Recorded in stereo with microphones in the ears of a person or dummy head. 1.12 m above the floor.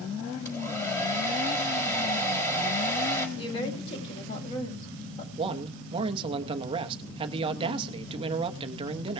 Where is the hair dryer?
10° left (ahead or behind), 4 m.